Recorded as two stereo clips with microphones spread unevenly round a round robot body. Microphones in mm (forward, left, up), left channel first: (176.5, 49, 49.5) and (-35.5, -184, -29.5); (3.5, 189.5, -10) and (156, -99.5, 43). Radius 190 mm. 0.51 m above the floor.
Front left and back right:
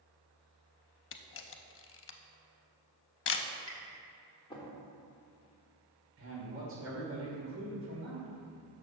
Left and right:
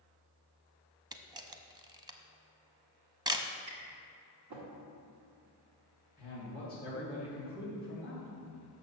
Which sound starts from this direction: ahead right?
Tapping, at 3.7 s.